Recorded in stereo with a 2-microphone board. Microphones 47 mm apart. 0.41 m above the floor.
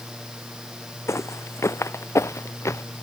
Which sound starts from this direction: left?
Footsteps, at 1.1 s.